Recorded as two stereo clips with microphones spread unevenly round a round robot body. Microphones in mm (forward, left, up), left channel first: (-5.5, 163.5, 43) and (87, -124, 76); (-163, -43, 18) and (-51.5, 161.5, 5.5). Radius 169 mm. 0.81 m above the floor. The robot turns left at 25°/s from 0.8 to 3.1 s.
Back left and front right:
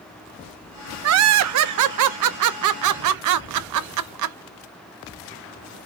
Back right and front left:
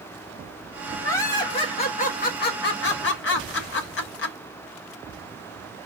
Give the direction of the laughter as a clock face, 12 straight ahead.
1 o'clock.